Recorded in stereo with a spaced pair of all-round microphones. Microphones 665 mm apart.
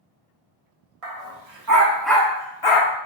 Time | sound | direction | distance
1.0 | a dog barking | 60° right (ahead or behind) | 1.0 m